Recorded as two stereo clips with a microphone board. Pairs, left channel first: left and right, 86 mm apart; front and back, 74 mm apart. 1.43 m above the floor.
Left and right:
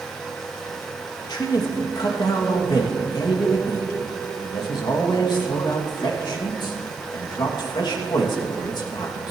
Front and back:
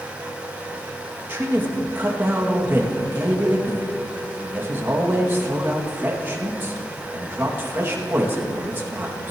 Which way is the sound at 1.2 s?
120° left.